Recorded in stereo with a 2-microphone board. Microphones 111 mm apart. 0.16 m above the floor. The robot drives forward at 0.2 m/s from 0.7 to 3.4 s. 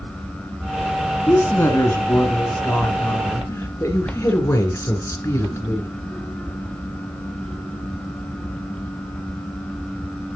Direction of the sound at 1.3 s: 25° left (ahead or behind).